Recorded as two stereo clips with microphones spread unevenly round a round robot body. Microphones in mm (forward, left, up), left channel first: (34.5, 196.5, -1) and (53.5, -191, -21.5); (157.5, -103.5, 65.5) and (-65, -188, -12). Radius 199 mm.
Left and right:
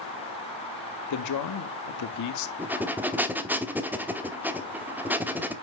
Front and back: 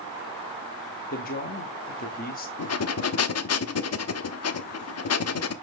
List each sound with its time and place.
1.1 s a man speaking: 85° left, 0.8 m
2.6 s breathing: 5° right, 0.9 m